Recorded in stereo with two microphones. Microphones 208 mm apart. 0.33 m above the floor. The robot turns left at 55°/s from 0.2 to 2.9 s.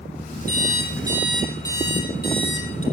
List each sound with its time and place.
0.5 s an alarm clock: 130° right, 6 m; by 2.8 s 100° left, 6 m